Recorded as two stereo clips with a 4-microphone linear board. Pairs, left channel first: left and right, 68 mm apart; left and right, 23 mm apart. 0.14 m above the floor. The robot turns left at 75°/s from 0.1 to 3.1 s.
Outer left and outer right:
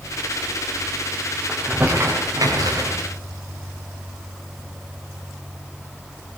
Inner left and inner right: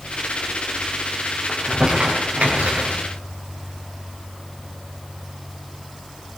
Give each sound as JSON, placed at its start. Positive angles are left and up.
{"t": 1.5, "sound": "crumpling", "side_deg": 5, "distance_m": 9.0}